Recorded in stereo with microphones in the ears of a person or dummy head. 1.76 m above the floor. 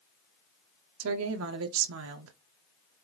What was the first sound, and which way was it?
A woman speaking, 80° right.